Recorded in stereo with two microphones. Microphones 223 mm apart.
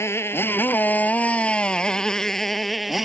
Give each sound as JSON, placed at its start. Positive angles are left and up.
{"t": 0.0, "sound": "a motorcycle", "side_deg": 10}